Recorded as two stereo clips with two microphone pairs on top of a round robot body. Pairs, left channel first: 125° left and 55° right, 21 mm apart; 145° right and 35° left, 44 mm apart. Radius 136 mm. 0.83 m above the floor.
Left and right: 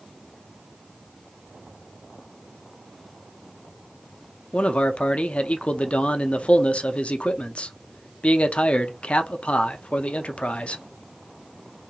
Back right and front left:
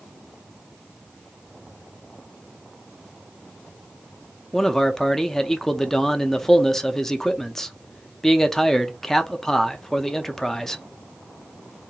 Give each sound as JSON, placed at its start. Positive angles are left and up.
{"t": 4.5, "sound": "a man speaking", "azimuth_deg": 135, "distance_m": 0.5}